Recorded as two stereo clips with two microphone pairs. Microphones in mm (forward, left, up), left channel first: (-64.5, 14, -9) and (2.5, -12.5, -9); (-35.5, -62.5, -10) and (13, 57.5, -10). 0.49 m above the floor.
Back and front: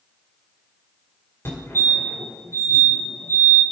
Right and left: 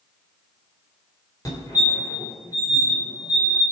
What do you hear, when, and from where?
1.4 s a fire alarm: 165° right, 2.5 m